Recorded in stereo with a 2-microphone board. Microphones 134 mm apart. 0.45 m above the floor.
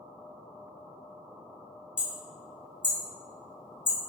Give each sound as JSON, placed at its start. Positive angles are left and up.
{"t": 2.0, "sound": "hammering", "side_deg": 40, "distance_m": 1.7}